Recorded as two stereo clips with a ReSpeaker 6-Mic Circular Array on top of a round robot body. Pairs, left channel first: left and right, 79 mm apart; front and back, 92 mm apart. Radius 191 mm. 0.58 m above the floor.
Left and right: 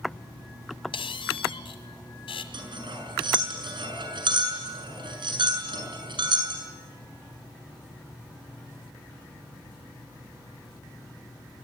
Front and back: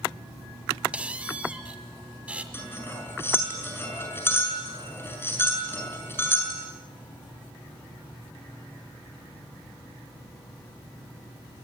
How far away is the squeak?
About 1.6 m.